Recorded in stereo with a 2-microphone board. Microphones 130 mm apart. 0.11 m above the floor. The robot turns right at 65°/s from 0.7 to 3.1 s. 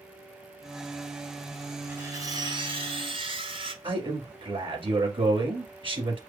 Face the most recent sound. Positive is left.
turn(degrees=-40)  # may be behind; listen again after turning